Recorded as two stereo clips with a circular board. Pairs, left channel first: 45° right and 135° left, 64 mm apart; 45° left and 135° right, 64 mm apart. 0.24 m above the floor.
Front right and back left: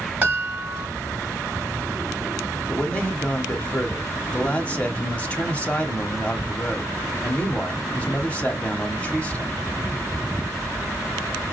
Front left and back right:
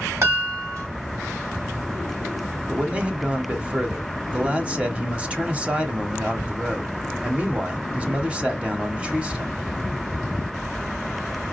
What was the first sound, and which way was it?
A chime, 170° right.